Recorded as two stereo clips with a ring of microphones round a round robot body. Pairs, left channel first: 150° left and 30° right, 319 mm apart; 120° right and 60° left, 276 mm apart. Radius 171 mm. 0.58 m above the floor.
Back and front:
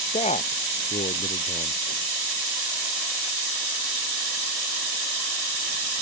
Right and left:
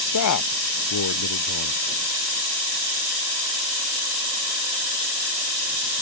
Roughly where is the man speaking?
Behind right.